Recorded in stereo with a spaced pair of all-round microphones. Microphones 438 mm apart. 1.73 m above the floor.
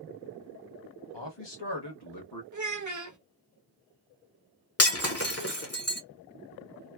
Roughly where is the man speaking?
Left.